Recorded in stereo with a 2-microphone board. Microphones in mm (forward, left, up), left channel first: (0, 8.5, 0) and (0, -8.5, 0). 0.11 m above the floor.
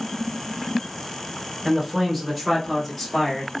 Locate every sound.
1.6 s a man speaking: 15° right (ahead or behind), 1.1 m; by 3.5 s 20° left (ahead or behind), 1.5 m